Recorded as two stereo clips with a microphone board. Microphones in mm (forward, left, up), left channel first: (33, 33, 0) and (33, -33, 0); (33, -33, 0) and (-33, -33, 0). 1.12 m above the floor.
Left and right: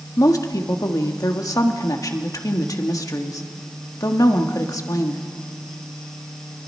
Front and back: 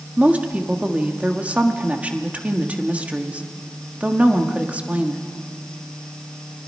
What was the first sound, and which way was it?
A woman speaking, 110° left.